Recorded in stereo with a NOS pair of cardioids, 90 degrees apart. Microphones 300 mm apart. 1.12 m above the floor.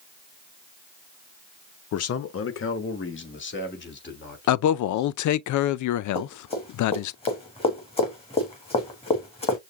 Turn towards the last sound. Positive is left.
turn(degrees=20)